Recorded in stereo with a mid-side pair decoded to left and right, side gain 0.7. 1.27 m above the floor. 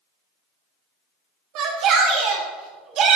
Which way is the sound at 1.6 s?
60° right.